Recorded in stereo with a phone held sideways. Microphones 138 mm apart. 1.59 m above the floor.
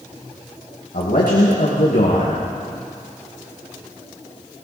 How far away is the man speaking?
About 2 m.